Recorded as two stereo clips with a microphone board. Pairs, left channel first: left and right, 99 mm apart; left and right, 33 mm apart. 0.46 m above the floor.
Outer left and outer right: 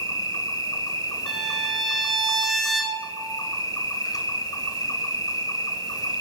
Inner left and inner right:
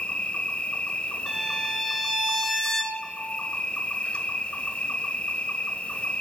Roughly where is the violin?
Centre.